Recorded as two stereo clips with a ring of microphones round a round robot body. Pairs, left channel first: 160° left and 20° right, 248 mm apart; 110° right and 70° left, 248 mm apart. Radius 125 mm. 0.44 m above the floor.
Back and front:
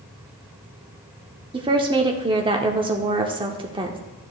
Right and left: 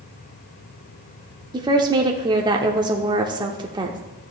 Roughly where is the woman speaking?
Ahead.